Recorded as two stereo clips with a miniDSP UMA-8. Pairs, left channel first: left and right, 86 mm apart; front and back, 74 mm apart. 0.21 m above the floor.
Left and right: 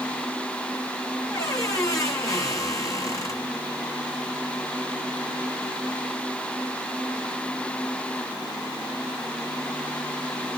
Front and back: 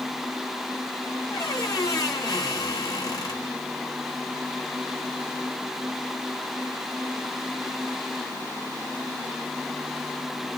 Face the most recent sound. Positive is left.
turn(degrees=35)